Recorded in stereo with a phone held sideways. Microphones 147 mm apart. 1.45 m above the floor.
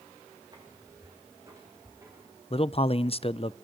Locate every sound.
0.5 s footsteps: 25° right (ahead or behind), 5.5 m; by 2.3 s 20° right (ahead or behind), 6.5 m
2.5 s a man speaking: 40° left (ahead or behind), 0.6 m